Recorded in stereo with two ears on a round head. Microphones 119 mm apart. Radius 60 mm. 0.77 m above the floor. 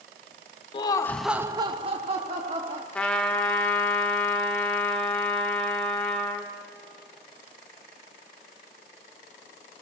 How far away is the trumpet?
About 1.3 m.